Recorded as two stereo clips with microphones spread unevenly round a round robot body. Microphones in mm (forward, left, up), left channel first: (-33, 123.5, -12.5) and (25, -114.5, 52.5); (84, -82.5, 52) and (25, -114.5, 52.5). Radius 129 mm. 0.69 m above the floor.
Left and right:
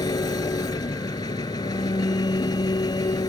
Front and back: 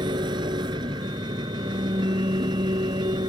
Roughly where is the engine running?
Behind.